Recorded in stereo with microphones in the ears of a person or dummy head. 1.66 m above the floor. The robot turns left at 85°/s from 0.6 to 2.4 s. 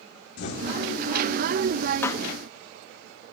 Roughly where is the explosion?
Left.